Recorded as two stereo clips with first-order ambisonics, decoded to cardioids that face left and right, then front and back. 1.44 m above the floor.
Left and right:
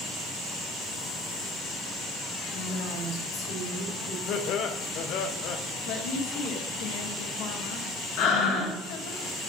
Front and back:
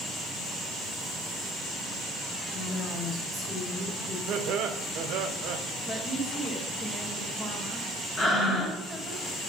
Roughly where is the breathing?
Left.